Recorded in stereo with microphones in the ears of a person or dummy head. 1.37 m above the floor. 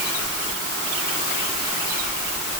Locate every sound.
Only background noise.